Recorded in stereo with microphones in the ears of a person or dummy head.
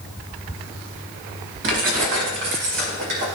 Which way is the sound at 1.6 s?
60° right (ahead or behind).